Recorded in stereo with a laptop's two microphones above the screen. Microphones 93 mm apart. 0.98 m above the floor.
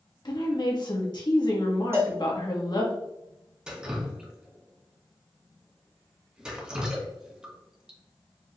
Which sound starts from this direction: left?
A woman speaking, at 0.2 s.